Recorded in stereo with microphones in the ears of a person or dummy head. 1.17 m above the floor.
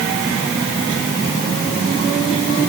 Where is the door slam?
No door slam in this recording.